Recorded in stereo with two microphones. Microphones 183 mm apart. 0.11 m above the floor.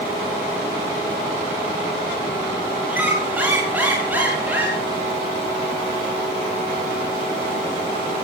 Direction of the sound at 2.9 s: 10° right (ahead or behind).